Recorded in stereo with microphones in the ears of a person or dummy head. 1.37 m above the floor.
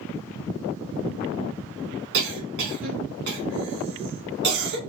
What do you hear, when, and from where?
2.1 s a cough: 55° right (ahead or behind), 1.4 m